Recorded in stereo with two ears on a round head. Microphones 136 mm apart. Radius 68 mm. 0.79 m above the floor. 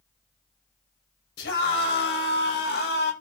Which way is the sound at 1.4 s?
85° left.